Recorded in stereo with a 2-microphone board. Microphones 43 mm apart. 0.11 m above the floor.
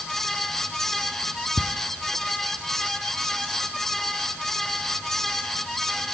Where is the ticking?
30° left (ahead or behind), 0.9 m.